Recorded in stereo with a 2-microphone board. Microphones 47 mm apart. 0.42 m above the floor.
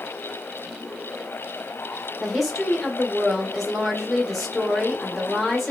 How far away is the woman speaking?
About 0.9 m.